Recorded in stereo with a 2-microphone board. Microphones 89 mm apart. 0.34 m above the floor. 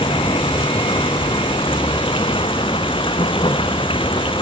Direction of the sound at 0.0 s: 85° left.